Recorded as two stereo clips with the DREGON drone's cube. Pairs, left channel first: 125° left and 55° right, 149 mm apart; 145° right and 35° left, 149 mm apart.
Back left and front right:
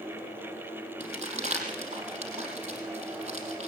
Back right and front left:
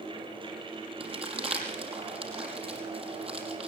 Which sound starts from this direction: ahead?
Crumpling, at 1.0 s.